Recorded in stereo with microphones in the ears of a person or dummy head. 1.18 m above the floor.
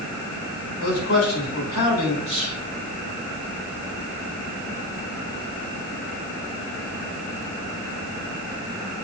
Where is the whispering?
30° left (ahead or behind), 4 m.